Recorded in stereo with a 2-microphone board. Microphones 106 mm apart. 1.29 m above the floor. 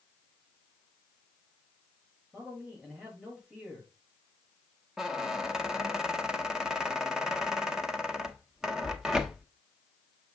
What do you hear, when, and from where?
2.3 s a man speaking: 10° right (ahead or behind), 5 m
5.0 s a squeak: 5° right (ahead or behind), 0.8 m